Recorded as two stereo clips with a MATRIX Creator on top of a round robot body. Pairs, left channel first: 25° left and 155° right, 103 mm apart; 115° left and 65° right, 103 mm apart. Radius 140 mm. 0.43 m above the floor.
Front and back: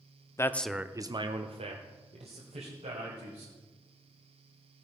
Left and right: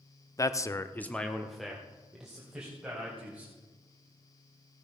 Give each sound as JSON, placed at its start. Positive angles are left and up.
{"t": 0.4, "sound": "a man speaking", "azimuth_deg": 70, "distance_m": 0.9}